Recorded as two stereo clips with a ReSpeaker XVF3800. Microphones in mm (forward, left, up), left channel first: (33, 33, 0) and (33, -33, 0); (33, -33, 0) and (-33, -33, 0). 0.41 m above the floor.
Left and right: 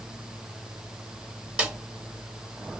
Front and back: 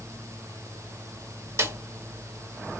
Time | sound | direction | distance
1.6 | a snare drum | 155° right | 1.8 m